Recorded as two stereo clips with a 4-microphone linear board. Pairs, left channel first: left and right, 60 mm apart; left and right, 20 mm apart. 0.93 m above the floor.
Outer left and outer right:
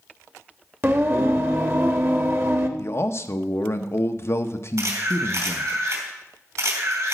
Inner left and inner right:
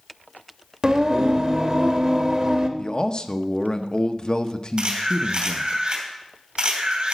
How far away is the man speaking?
About 0.7 m.